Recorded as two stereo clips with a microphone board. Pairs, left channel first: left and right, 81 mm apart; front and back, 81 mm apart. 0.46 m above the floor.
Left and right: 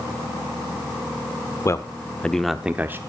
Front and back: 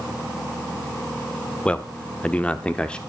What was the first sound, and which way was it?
A man speaking, 65° left.